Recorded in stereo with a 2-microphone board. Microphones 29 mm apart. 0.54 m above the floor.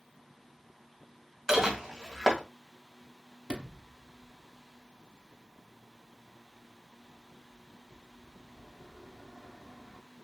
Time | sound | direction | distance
1.5 | dishes clattering | 15° right (ahead or behind) | 2.0 m
3.5 | a sliding door | 40° right (ahead or behind) | 0.7 m